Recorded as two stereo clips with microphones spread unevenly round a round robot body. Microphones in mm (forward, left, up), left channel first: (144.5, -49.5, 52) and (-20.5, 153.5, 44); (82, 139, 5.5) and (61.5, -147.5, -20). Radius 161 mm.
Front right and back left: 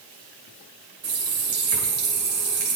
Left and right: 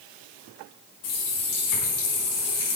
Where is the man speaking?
I don't hear a man speaking.